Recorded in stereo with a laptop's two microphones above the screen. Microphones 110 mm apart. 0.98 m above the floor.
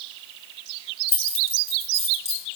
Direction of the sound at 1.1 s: 85° left.